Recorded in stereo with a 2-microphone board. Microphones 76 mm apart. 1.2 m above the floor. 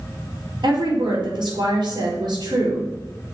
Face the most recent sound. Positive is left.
turn(degrees=-75)  # may be behind; listen again after turning